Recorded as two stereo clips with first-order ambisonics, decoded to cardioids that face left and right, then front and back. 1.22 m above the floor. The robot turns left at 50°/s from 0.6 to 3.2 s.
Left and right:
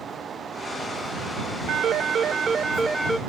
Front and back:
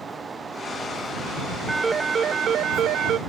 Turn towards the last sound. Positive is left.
turn(degrees=180)